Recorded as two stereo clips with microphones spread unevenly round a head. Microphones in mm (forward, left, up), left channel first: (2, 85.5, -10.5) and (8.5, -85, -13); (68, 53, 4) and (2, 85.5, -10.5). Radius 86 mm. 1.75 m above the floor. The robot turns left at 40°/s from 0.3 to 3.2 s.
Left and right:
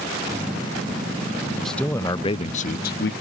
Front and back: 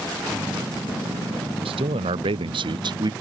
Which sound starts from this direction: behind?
A man speaking, at 1.6 s.